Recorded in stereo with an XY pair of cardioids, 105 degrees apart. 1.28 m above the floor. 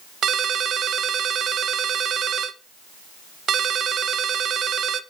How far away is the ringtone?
About 0.7 m.